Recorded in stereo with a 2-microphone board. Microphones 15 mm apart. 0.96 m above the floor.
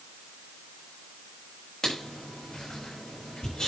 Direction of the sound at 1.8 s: 50° left (ahead or behind).